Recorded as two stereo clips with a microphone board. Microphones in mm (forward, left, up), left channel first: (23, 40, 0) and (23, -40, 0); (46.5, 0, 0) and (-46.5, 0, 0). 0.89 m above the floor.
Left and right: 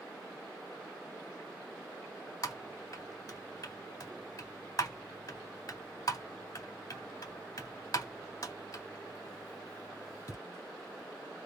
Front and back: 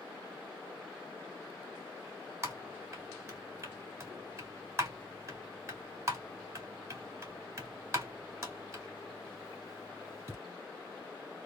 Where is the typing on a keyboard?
125° left, 2 m.